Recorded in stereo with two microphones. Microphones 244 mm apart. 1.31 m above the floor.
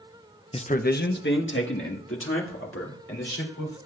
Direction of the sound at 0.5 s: 20° left (ahead or behind).